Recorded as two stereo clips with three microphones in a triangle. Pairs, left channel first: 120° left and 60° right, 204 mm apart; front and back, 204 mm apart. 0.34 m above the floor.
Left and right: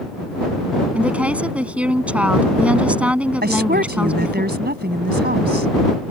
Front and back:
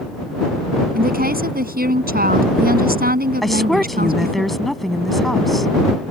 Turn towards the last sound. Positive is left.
turn(degrees=-90)